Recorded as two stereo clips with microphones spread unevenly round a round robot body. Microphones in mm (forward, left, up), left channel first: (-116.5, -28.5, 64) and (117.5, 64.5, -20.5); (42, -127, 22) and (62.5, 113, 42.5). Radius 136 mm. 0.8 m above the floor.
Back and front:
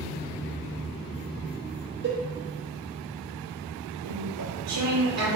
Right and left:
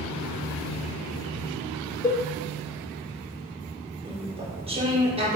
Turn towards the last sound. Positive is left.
turn(degrees=15)